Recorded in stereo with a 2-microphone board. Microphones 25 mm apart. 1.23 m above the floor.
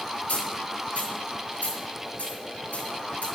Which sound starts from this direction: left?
A dropped coin, at 0.3 s.